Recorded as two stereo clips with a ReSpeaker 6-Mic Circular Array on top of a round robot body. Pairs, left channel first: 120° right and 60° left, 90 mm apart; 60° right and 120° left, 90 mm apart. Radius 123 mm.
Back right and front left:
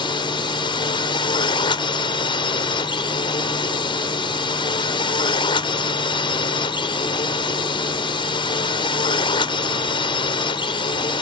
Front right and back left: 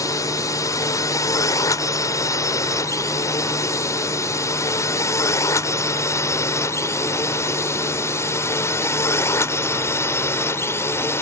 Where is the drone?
105° right; by 11.2 s 120° right.